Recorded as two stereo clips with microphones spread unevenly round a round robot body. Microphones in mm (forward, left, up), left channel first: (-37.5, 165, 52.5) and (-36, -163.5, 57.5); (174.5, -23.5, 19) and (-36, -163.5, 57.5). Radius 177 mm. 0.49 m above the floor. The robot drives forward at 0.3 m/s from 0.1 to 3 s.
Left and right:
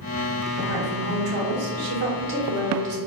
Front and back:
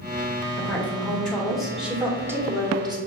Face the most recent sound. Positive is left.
turn(degrees=-70)